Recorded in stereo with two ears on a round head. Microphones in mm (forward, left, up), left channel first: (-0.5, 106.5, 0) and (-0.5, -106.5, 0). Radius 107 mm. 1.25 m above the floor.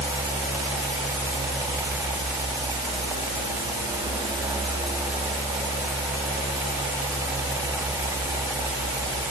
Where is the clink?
I don't hear a clink.